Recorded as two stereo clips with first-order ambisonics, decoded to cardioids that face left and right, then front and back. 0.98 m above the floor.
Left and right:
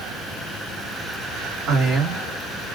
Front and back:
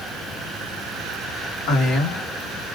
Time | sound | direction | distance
1.7 | a man speaking | 40° right | 1.5 m